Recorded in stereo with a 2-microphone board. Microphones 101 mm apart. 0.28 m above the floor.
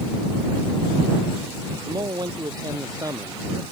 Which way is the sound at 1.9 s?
40° right (ahead or behind).